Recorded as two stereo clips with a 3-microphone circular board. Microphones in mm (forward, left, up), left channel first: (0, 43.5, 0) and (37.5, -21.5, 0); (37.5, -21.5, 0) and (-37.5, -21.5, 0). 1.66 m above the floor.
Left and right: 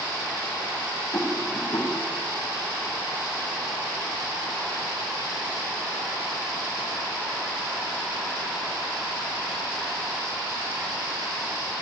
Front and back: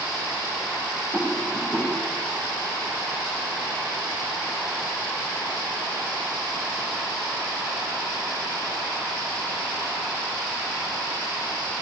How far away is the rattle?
About 1.0 m.